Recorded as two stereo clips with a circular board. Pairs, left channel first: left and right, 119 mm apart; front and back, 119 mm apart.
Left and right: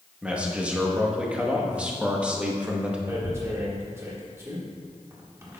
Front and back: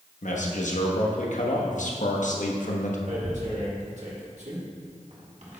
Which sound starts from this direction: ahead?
A man speaking, at 0.2 s.